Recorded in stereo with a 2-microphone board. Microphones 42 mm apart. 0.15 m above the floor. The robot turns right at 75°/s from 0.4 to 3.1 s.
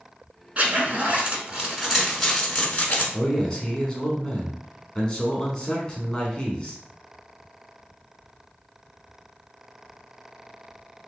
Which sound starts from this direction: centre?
A man speaking, at 3.1 s.